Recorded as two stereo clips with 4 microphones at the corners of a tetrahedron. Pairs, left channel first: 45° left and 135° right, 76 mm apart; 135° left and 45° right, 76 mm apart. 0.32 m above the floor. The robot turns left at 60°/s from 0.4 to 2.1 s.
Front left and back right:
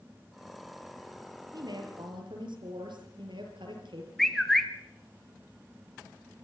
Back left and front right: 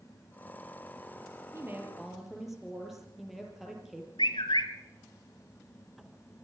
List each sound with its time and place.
1.5 s a woman speaking: 100° right, 6 m; by 4.1 s 130° right, 6 m
4.2 s a bird: 130° left, 1.7 m